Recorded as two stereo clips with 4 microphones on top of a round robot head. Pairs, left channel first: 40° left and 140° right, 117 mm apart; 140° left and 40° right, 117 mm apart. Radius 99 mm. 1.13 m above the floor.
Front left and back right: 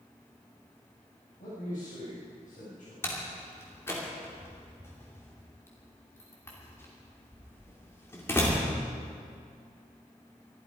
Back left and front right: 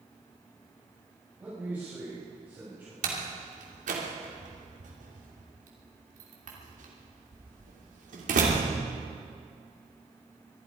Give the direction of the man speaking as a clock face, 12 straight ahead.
11 o'clock.